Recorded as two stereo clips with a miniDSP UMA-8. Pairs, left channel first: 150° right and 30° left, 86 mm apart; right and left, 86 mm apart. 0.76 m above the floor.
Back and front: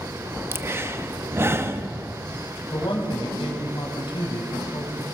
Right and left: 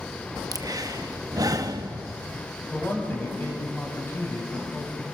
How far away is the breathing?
About 0.9 m.